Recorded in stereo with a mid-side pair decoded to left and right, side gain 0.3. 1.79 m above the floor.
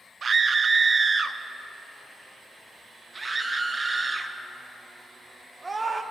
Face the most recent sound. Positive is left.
turn(degrees=-45)